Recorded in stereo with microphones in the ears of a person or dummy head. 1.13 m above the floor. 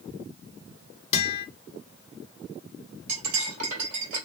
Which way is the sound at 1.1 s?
30° left (ahead or behind).